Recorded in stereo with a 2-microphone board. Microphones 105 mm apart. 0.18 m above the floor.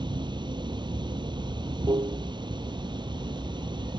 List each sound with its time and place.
0.0 s running water: 45° right (ahead or behind)